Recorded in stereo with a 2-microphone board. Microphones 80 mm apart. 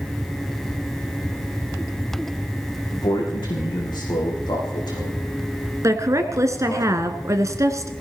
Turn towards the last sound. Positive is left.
turn(degrees=-40)  # may be behind; listen again after turning